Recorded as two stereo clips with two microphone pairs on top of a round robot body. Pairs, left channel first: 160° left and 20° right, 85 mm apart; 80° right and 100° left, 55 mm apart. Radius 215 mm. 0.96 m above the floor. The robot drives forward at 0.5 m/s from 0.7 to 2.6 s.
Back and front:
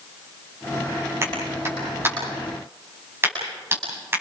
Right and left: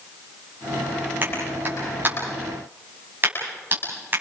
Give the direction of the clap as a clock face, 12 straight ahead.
11 o'clock.